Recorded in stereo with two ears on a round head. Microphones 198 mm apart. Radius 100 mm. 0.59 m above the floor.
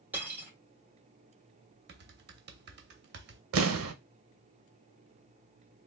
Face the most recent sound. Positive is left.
turn(degrees=-70)  # may be behind; listen again after turning